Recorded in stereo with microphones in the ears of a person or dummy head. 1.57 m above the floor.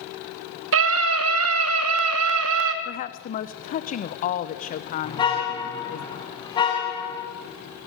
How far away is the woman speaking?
About 0.9 m.